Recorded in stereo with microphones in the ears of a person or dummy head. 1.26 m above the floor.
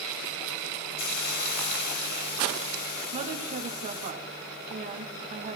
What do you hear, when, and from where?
1.0 s a hiss: 50° left (ahead or behind), 1.3 m
3.1 s a woman speaking: 45° right (ahead or behind), 1.9 m